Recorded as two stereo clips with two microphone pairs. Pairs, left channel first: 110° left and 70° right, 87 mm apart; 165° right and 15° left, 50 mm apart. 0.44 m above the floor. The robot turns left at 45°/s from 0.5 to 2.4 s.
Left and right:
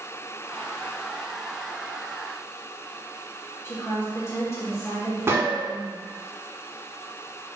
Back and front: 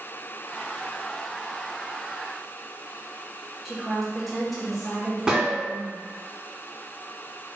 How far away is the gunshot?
About 0.7 m.